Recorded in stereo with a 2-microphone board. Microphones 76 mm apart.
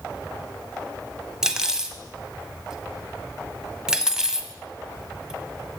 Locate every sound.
1.4 s cutlery clinking: 10° right (ahead or behind), 0.8 m